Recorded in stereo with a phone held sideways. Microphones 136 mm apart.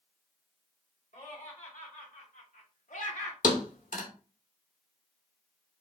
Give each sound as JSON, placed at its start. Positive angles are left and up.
{"t": 1.1, "sound": "laughter", "side_deg": 80, "distance_m": 2.5}
{"t": 3.4, "sound": "a thud", "side_deg": 80, "distance_m": 1.2}